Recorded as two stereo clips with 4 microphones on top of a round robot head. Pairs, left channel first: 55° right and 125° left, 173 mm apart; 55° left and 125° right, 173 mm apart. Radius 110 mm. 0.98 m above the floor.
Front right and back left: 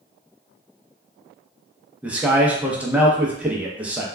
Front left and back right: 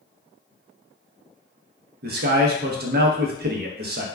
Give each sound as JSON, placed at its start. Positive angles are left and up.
{"t": 2.0, "sound": "a man speaking", "azimuth_deg": -155, "distance_m": 0.6}